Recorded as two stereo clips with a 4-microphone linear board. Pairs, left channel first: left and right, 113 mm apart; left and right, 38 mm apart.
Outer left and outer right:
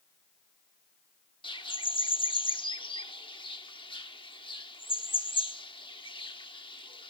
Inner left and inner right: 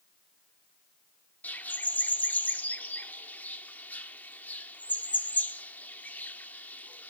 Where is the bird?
50° left (ahead or behind), 1.1 m.